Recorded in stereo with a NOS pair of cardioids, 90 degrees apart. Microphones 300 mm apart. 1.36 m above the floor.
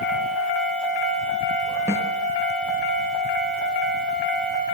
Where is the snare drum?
10° right, 6.5 m.